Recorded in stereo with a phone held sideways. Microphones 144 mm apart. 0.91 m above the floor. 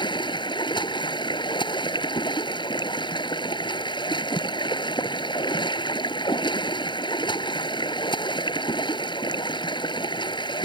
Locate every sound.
0.0 s running water: 35° left (ahead or behind)